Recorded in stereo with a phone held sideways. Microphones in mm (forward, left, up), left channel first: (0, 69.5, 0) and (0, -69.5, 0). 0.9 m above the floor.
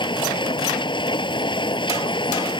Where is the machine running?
35° left (ahead or behind).